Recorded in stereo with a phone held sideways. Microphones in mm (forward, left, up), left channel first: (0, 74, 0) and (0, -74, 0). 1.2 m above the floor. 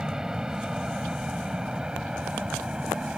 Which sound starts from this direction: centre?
An aircraft, at 0.0 s.